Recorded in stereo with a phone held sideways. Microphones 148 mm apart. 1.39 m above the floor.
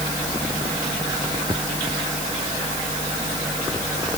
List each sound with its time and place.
Only background noise.